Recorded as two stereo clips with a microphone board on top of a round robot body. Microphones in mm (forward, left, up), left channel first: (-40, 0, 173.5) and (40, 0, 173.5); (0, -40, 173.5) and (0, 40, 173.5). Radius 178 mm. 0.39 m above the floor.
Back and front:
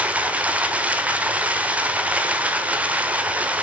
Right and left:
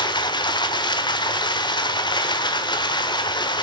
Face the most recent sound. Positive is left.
turn(degrees=-75)